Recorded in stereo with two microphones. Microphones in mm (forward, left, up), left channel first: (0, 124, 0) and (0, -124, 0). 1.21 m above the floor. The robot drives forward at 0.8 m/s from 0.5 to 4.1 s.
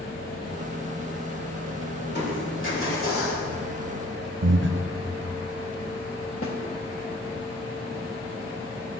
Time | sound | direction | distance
2.0 | crushing | 45° left (ahead or behind) | 2.5 m
4.4 | breathing | 50° right (ahead or behind) | 0.5 m
6.4 | a snare drum | 60° left (ahead or behind) | 1.3 m